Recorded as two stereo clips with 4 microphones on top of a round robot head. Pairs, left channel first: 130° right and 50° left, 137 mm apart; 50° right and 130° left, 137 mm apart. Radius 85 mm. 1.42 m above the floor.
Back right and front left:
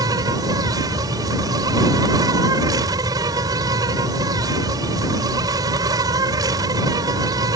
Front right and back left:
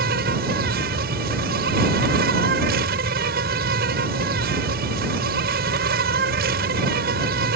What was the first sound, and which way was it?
An insect, 115° left.